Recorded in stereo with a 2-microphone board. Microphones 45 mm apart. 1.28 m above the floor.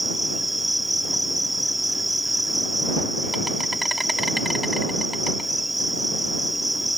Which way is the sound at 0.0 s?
Centre (ahead or behind).